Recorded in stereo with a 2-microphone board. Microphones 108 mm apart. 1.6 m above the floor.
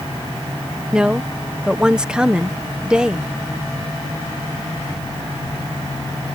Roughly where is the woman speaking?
Centre.